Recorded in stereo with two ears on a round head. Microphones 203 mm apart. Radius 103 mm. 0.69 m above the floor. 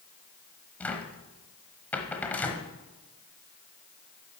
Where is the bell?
No bell in this recording.